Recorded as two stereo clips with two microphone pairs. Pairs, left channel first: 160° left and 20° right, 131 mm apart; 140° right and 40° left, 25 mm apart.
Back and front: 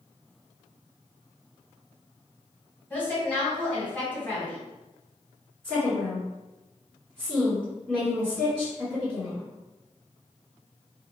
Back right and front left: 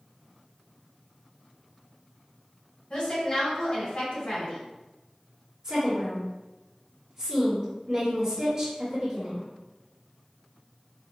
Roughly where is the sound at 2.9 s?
Behind right.